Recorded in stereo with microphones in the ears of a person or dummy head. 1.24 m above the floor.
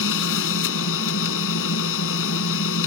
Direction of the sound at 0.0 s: 65° left (ahead or behind).